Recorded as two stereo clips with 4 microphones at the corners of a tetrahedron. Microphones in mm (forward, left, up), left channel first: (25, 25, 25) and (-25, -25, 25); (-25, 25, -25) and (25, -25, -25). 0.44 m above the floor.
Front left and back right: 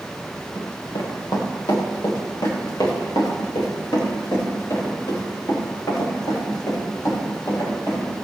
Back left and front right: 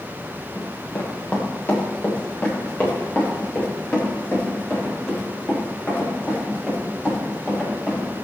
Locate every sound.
0.6 s running footsteps: 70° left, 3.5 m; by 8.2 s 65° left, 12.5 m